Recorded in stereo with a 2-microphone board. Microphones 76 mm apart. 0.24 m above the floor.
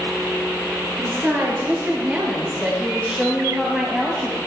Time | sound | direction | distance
1.0 | a woman speaking | 35° right (ahead or behind) | 5 m